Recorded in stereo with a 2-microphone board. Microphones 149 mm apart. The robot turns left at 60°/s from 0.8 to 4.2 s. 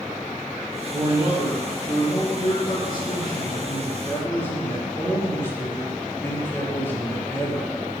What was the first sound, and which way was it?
A man speaking, 150° right.